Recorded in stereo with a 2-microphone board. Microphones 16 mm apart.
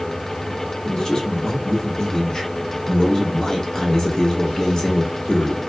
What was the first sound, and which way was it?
A man speaking, 30° left (ahead or behind).